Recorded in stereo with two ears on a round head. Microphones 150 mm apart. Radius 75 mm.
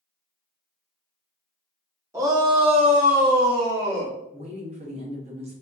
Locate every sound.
2.1 s a shout: 20° right (ahead or behind), 1.0 m; by 4.2 s 75° right (ahead or behind), 1.1 m
4.3 s a woman speaking: 40° right (ahead or behind), 0.8 m